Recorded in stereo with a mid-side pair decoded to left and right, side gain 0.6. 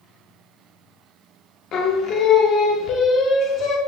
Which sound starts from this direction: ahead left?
Singing, at 1.7 s.